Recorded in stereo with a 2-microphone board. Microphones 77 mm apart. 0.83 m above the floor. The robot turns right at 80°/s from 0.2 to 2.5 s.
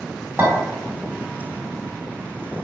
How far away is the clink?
About 1.4 m.